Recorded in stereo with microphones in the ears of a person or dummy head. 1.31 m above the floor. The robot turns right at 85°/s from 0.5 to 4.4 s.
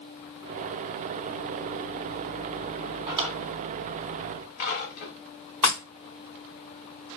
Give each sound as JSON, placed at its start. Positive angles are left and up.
{"t": 3.1, "sound": "a drawer", "side_deg": -25, "distance_m": 1.3}
{"t": 5.6, "sound": "breaking glass", "side_deg": 10, "distance_m": 1.2}